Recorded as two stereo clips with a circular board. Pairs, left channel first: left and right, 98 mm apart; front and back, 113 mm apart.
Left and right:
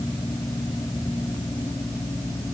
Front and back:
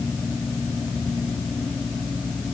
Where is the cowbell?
I don't hear a cowbell.